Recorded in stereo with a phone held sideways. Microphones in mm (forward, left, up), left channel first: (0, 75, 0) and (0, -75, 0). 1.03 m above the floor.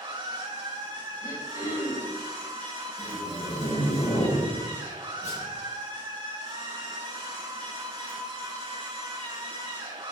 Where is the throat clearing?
25° left (ahead or behind), 3.5 m.